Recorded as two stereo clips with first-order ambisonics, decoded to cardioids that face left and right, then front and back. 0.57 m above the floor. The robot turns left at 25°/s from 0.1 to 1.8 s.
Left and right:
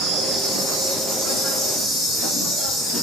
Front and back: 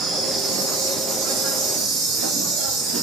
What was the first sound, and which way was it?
An insect, 130° right.